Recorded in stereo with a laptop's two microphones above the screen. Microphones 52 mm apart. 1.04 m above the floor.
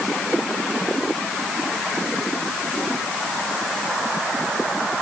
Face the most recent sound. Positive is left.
No sound to turn to.